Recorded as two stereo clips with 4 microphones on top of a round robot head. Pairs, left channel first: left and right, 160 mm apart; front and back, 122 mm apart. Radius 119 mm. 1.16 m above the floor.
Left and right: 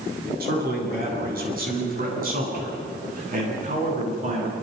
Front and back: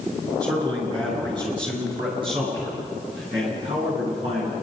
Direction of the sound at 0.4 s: 115° right.